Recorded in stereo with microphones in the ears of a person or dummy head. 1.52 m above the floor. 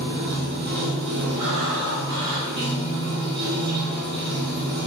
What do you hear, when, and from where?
0.0 s running water: 55° right (ahead or behind), 0.7 m
1.4 s breathing: 65° right (ahead or behind), 1.2 m